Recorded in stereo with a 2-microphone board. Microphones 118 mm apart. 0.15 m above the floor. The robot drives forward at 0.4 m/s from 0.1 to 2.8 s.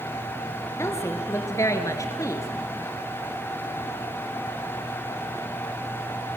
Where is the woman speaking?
20° left (ahead or behind), 2.5 m; by 2.5 s 25° left (ahead or behind), 2 m.